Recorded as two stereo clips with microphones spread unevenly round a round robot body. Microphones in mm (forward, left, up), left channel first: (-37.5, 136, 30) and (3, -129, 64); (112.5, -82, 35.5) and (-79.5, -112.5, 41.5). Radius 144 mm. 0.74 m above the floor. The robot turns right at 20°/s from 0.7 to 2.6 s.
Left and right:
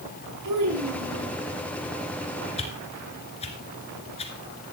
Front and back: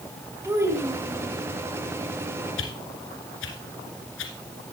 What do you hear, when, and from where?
0.4 s a child speaking: 95° right, 6 m; by 1.4 s 85° right, 6 m
2.6 s a whoosh: 30° left, 2 m